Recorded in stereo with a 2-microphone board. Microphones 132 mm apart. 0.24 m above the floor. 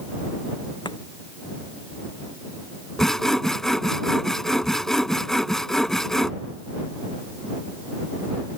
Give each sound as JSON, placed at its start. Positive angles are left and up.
{"t": 0.8, "sound": "chopping", "side_deg": 35}
{"t": 3.0, "sound": "sawing", "side_deg": 5}